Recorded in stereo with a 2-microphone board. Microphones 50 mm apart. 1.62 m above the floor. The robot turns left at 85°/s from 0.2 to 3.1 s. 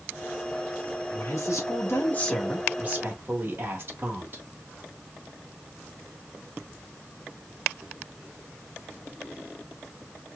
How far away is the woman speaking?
About 1.3 m.